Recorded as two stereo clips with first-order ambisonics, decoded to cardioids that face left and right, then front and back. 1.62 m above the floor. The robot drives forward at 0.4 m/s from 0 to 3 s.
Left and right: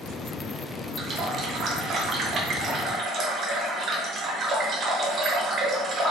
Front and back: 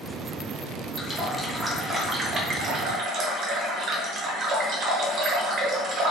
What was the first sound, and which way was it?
A running tap, 55° right.